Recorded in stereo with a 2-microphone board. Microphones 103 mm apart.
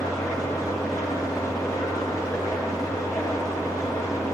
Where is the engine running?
30° left (ahead or behind), 6 m.